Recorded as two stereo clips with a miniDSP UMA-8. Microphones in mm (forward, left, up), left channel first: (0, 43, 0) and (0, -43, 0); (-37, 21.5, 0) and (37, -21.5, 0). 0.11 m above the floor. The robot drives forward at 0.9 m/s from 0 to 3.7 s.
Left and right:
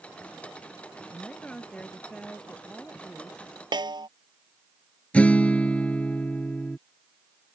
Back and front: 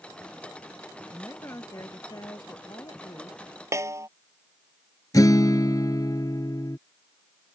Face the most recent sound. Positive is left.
turn(degrees=160)